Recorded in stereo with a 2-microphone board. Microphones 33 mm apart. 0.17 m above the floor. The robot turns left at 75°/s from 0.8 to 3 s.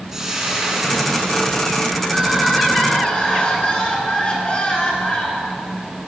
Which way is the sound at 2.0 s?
145° right.